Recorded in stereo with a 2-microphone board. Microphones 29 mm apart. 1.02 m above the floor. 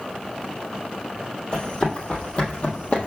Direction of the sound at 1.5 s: 35° left (ahead or behind).